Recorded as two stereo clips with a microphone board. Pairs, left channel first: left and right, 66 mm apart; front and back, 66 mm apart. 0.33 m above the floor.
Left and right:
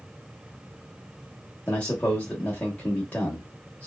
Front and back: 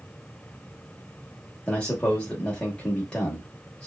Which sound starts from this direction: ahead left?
A man speaking, at 1.7 s.